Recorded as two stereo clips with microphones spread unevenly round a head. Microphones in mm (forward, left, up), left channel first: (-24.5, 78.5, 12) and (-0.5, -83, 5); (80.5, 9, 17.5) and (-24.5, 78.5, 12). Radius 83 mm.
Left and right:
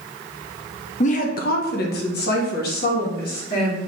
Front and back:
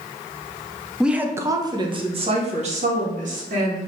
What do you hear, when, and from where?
1.0 s a woman speaking: 65° left, 0.7 m; by 3.8 s 135° left, 1.6 m